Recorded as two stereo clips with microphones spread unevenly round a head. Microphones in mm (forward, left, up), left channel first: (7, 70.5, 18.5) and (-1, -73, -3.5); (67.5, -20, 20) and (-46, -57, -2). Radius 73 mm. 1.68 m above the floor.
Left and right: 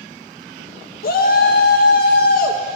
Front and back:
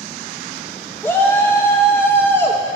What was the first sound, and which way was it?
A shout, 90° left.